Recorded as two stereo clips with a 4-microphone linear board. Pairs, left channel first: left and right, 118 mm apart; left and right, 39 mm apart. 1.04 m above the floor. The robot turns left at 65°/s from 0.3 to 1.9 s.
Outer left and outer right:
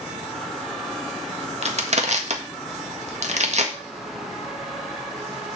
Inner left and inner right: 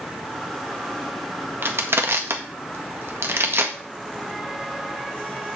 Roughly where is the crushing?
Right.